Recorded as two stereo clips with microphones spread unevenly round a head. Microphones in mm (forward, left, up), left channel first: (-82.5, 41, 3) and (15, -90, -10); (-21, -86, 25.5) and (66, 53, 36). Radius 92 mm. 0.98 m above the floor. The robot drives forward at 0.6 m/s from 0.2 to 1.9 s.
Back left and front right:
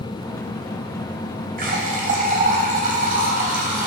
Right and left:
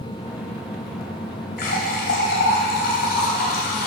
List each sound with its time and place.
1.6 s a running tap: 90° right, 3.5 m